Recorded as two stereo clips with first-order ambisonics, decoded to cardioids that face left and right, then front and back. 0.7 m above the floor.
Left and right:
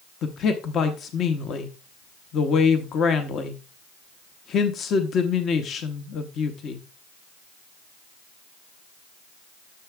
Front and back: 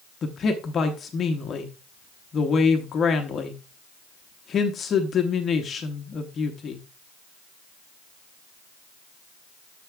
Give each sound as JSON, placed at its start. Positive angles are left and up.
{"t": 0.2, "sound": "a man speaking", "azimuth_deg": 50, "distance_m": 0.7}